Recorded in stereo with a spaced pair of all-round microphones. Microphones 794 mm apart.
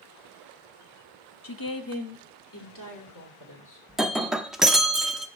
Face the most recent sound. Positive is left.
turn(degrees=0)  # may be behind; listen again after turning